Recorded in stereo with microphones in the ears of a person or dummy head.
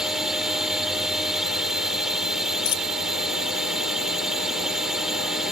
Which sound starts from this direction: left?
A dropped coin, at 2.6 s.